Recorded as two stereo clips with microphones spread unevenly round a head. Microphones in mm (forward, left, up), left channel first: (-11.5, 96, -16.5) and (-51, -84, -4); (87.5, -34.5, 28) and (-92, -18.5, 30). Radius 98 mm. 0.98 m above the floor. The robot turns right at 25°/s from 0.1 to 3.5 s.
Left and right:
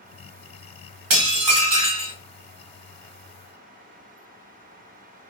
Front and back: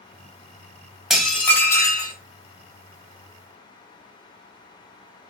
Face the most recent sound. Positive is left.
turn(degrees=-40)